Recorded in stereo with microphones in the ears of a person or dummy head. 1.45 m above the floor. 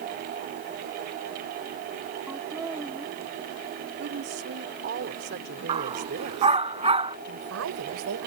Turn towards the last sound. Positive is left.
turn(degrees=-80)